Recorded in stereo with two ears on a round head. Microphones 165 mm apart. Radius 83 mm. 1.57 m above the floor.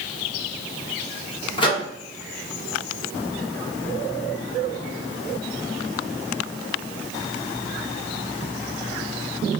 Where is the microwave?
25° left (ahead or behind), 0.9 m.